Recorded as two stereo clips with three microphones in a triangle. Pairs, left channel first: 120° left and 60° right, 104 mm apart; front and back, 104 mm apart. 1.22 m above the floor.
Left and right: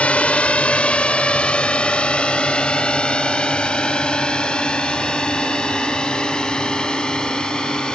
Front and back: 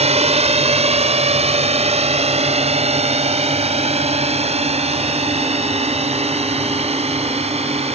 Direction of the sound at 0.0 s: 160° right.